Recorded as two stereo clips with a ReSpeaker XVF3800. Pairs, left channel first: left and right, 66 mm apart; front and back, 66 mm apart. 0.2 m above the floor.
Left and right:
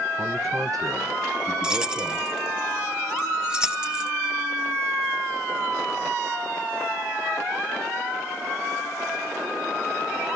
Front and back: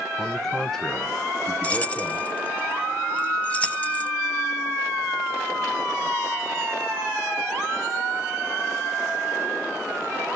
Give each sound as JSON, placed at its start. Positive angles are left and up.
{"t": 0.2, "sound": "a man speaking", "azimuth_deg": -85, "distance_m": 1.3}
{"t": 1.6, "sound": "keys jangling", "azimuth_deg": -30, "distance_m": 0.8}